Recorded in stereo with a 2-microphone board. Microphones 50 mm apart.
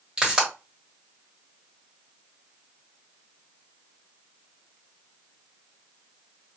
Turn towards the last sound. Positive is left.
turn(degrees=-20)  # may be behind; listen again after turning